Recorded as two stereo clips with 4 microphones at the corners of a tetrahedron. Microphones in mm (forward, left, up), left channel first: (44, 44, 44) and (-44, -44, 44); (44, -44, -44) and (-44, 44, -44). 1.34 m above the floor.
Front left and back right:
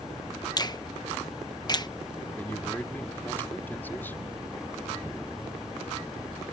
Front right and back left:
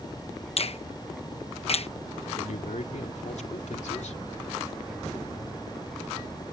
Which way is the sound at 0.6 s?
10° right.